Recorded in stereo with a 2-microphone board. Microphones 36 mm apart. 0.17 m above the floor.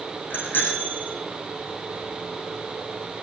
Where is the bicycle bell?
65° left (ahead or behind), 6.5 m.